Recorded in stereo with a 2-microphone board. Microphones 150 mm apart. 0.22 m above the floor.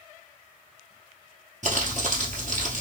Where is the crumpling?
55° right (ahead or behind), 1.8 m.